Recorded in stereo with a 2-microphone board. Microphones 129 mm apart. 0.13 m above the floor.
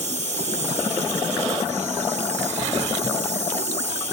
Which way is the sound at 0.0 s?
70° right (ahead or behind).